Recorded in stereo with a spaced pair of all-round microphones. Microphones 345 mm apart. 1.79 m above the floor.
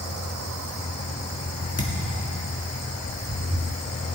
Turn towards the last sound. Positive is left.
turn(degrees=45)  # may be behind; listen again after turning